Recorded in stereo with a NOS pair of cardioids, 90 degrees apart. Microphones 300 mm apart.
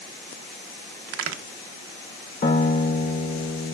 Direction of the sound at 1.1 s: 60° right.